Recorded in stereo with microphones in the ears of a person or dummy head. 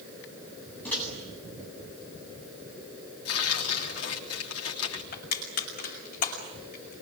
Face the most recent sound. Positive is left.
turn(degrees=45)  # may be behind; listen again after turning